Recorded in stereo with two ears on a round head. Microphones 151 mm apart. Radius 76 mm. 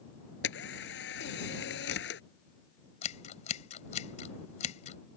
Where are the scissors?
40° left (ahead or behind).